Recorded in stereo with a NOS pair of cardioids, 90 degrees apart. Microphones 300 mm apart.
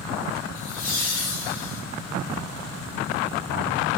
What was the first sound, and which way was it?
Laughter, 60° left.